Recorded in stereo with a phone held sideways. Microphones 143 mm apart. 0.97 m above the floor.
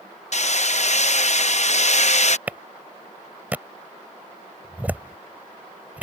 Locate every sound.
0.3 s hammering: 55° left (ahead or behind)
2.5 s a clap: 10° right (ahead or behind)